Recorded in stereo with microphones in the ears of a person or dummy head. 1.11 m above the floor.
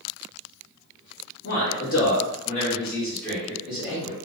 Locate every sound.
1.4 s a man speaking: 50° left (ahead or behind), 1.1 m; by 4.2 s 15° right (ahead or behind), 1.1 m